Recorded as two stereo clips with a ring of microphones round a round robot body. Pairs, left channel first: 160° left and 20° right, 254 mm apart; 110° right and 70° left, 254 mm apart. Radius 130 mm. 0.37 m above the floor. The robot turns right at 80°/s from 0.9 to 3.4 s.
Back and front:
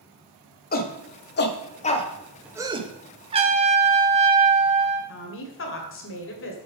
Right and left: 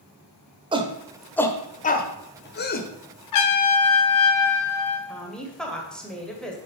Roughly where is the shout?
Behind left.